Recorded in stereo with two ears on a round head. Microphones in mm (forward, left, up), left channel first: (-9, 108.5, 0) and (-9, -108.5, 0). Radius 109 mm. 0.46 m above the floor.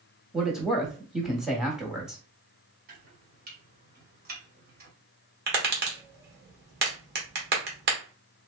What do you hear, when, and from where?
0.3 s a man speaking: centre (ahead or behind), 1.0 m
2.9 s chopping: 40° right (ahead or behind), 1.4 m
5.5 s tapping: 45° right (ahead or behind), 1.2 m